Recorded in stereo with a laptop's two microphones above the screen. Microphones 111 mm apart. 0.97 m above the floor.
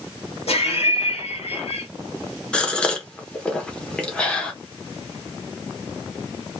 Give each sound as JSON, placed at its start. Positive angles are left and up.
{"t": 0.5, "sound": "laughter", "side_deg": 70, "distance_m": 1.7}
{"t": 2.5, "sound": "a gasp", "side_deg": 10, "distance_m": 0.9}